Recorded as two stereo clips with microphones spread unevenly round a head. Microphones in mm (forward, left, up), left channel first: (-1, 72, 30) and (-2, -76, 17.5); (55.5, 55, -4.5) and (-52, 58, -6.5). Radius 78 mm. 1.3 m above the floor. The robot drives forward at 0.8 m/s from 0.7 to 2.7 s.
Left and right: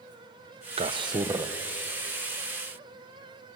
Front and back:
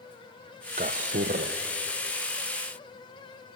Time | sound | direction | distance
0.8 | a man speaking | 140° right | 0.6 m